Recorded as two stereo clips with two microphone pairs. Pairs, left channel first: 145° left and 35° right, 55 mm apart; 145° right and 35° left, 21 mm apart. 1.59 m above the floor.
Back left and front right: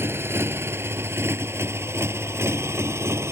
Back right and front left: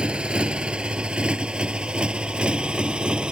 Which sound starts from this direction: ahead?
A motorcycle, at 0.0 s.